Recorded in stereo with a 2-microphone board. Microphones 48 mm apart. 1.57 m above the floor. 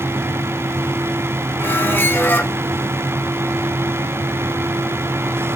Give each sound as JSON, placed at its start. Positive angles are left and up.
{"t": 1.6, "sound": "a squeak", "side_deg": 50, "distance_m": 0.9}